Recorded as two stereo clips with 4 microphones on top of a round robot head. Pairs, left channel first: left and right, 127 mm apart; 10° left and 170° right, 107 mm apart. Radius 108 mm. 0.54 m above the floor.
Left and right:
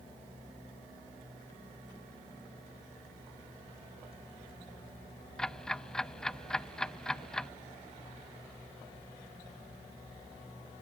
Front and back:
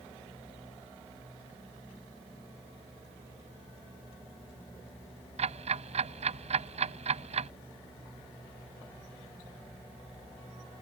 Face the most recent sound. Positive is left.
turn(degrees=175)